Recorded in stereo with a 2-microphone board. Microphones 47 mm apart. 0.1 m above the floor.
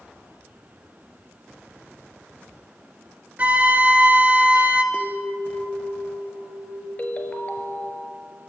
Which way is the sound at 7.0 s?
30° left (ahead or behind).